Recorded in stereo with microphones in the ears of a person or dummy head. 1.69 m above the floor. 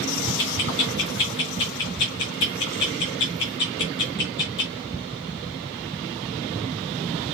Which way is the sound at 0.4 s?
15° left (ahead or behind).